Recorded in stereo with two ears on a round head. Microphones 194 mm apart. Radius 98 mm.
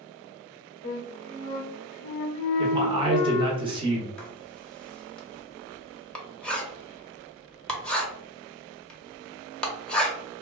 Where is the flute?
35° left (ahead or behind), 0.7 m.